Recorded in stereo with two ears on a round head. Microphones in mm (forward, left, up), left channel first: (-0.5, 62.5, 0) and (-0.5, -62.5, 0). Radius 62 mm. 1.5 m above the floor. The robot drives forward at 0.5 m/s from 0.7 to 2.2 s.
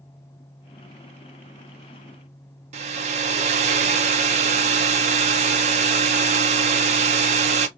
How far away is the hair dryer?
About 0.6 m.